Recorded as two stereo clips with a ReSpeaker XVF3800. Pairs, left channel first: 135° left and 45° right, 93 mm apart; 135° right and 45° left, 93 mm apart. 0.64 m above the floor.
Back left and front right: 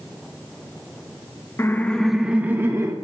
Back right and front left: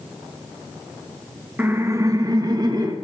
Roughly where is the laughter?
Left.